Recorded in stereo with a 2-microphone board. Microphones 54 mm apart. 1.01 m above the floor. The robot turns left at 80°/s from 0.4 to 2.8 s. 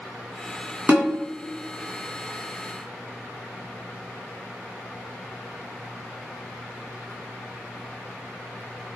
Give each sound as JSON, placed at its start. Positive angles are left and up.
{"t": 0.9, "sound": "a snare drum", "side_deg": -35, "distance_m": 1.8}